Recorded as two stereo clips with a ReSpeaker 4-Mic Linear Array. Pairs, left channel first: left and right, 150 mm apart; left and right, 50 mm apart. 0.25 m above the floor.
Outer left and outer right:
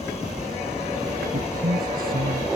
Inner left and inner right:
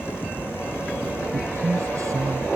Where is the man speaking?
75° right (ahead or behind); by 2.5 s 80° right.